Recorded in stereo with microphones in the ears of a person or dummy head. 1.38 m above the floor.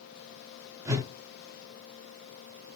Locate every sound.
0.8 s a whoosh: 10° right (ahead or behind), 0.5 m